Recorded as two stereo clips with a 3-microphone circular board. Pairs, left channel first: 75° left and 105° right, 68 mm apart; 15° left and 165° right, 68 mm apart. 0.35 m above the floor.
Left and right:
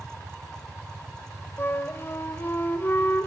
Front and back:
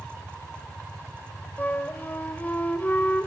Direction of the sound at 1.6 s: 55° left.